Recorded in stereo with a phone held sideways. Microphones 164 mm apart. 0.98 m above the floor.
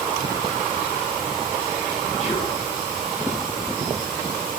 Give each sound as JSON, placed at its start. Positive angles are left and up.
{"t": 2.2, "sound": "whispering", "side_deg": 40, "distance_m": 1.0}